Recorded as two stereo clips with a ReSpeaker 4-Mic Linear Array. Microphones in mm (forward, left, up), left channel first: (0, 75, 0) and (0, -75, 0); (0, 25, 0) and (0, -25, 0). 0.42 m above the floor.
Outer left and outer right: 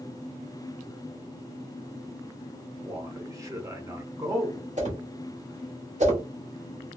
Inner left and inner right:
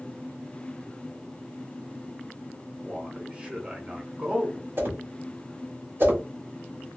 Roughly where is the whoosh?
Right.